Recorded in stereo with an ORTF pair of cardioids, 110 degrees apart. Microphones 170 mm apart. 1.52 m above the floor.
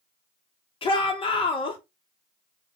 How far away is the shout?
About 1.7 m.